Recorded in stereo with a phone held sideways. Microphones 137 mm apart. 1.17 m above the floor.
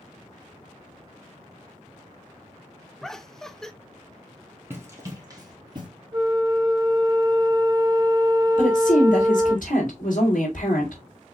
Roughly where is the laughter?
Centre.